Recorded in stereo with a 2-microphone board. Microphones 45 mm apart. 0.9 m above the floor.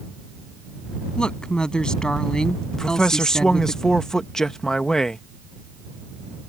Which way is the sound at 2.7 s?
15° left (ahead or behind).